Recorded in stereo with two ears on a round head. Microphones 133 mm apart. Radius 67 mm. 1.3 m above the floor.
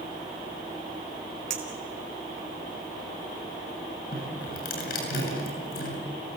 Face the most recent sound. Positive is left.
turn(degrees=65)  # may be behind; listen again after turning